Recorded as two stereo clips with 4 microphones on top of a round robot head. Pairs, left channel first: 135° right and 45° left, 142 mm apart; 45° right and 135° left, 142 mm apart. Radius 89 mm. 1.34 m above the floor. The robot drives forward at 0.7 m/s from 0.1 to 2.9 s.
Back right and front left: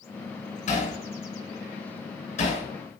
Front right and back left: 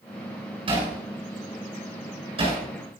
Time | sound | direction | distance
0.7 | hammering | 175° right | 7.5 m